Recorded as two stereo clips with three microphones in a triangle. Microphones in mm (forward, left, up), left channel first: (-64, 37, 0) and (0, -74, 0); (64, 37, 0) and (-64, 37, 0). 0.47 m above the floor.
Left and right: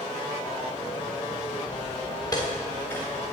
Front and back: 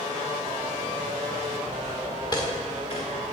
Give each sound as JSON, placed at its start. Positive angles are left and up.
{"t": 1.7, "sound": "footsteps", "azimuth_deg": 75, "distance_m": 2.0}